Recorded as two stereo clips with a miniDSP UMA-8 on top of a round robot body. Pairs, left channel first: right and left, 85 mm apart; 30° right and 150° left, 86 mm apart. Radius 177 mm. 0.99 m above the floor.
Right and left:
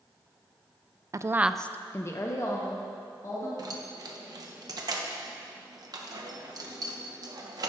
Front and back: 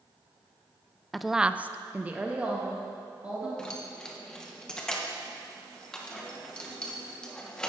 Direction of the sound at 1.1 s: 60° left.